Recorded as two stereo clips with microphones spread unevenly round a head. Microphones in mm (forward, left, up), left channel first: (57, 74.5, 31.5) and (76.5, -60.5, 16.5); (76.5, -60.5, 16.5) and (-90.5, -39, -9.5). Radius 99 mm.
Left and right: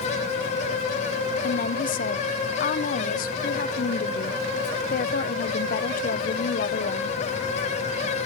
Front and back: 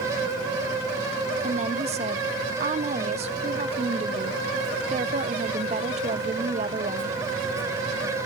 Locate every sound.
1.4 s a woman speaking: 110° left, 0.8 m